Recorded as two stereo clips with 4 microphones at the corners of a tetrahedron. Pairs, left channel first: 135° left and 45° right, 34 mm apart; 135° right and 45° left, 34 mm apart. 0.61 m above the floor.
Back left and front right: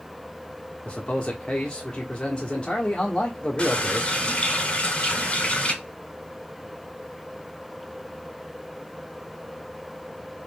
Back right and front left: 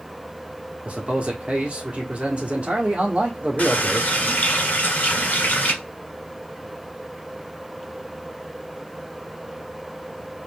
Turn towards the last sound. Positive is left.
turn(degrees=-170)